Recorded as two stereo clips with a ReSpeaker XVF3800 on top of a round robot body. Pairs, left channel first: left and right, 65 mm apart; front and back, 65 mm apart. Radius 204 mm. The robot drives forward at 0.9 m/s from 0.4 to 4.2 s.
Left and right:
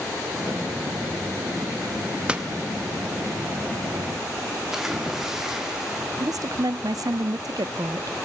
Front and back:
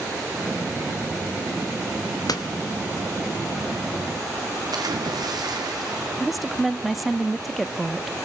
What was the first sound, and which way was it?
A door slam, 15° right.